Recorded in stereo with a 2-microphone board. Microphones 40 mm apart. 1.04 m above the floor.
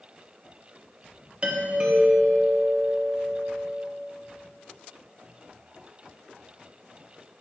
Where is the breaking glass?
No breaking glass in this recording.